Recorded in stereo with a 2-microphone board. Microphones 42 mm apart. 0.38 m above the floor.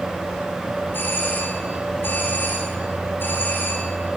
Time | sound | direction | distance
0.9 | a doorbell | 55° left (ahead or behind) | 4.5 m